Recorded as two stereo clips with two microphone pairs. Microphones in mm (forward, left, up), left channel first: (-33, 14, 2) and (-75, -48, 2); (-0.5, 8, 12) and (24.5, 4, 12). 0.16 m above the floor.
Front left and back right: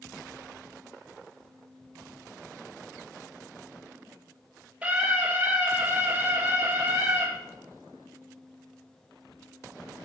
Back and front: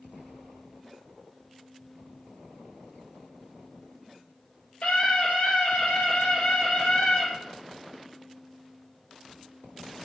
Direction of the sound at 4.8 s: 160° left.